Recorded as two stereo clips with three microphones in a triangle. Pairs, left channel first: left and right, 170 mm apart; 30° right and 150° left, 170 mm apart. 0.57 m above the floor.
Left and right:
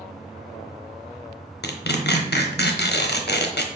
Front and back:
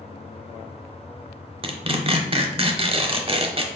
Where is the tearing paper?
95° left, 0.5 m.